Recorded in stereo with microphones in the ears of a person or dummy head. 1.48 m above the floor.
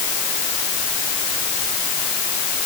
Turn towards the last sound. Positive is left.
No sound to turn to.